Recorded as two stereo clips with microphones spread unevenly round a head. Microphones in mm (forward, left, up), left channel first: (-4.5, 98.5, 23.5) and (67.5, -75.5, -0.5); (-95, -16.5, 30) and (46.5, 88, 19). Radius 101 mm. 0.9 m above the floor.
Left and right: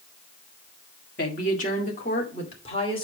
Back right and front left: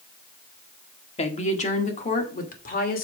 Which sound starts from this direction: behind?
A woman speaking, at 1.2 s.